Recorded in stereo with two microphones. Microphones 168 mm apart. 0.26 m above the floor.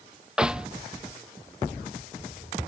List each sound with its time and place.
0.4 s a snare drum: 5° right (ahead or behind)